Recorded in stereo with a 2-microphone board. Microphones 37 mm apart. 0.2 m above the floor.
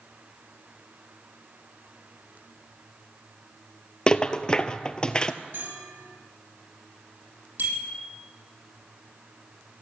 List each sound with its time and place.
4.1 s a rattle: 25° left (ahead or behind), 0.7 m
5.5 s a bell: 70° right (ahead or behind), 2.5 m
7.6 s a bicycle bell: 80° right, 5 m